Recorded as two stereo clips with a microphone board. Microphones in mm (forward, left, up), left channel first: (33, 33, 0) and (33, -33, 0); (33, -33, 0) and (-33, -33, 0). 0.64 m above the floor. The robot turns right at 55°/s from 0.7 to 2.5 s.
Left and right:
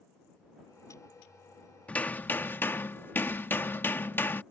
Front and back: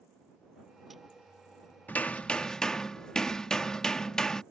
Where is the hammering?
35° left; by 4.4 s 70° left.